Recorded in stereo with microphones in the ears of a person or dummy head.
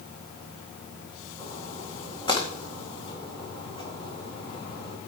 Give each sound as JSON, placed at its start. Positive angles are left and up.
{"t": 1.4, "sound": "a splash", "side_deg": 30, "distance_m": 2.0}